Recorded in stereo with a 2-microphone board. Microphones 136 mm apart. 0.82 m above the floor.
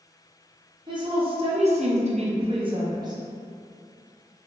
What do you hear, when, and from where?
0.9 s a woman speaking: 35° right (ahead or behind), 0.8 m; by 3.2 s 25° right (ahead or behind), 0.8 m